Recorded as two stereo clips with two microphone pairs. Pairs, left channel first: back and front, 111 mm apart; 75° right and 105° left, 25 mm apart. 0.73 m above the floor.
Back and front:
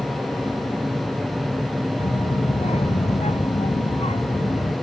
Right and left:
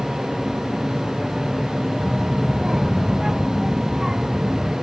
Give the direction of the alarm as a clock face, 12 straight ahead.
No alarm in this recording.